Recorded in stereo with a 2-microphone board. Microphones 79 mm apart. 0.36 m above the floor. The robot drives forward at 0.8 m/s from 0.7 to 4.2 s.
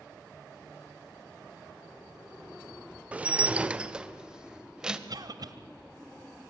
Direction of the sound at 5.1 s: 55° right (ahead or behind).